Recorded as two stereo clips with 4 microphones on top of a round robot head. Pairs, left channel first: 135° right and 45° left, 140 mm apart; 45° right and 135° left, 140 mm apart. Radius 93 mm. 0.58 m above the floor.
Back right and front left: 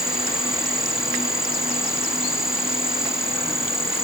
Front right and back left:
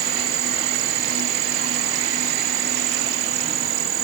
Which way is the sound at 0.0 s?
130° left.